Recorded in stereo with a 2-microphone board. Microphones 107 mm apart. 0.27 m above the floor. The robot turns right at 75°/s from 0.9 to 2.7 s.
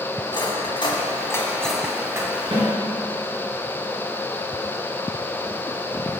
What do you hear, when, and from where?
0.3 s cutlery clinking: 50° left (ahead or behind), 1.4 m; by 2.3 s 35° right (ahead or behind), 1.4 m
2.5 s a snare drum: 60° right (ahead or behind), 3 m; by 2.7 s 55° right (ahead or behind), 3 m